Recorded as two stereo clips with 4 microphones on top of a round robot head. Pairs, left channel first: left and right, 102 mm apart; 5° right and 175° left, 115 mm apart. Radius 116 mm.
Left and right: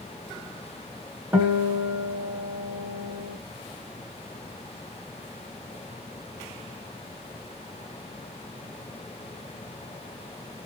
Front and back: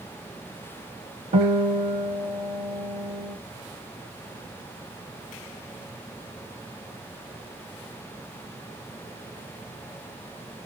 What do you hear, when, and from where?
1.3 s a guitar: 160° right, 2 m